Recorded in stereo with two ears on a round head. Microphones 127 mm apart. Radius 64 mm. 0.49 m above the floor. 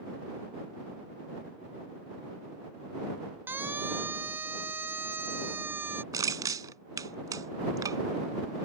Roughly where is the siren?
Centre.